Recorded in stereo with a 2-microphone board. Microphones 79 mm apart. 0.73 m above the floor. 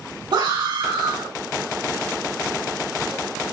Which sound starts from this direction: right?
A scream, at 0.3 s.